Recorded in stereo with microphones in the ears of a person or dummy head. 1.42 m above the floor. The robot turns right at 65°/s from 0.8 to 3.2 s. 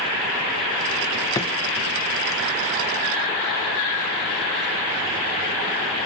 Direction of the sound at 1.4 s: 20° left (ahead or behind).